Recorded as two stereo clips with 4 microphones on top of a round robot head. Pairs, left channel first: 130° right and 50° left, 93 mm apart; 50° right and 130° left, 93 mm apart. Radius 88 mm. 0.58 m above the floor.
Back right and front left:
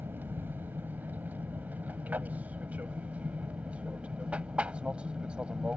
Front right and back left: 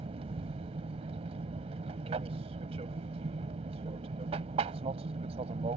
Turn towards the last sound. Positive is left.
turn(degrees=130)